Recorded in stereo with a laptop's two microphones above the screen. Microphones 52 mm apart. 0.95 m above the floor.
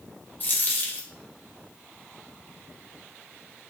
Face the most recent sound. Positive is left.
turn(degrees=40)  # may be behind; listen again after turning